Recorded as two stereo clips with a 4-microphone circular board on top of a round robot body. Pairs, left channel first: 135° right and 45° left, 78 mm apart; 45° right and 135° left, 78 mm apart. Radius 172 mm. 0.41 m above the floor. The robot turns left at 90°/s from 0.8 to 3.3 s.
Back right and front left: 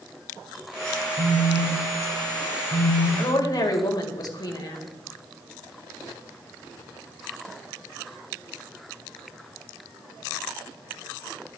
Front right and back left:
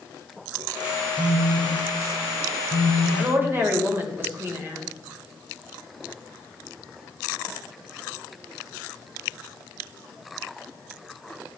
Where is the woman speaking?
155° right, 2.5 m; by 4.9 s 165° right, 2.5 m.